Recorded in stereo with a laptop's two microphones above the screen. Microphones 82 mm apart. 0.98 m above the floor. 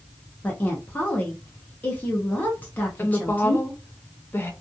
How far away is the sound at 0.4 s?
About 0.6 m.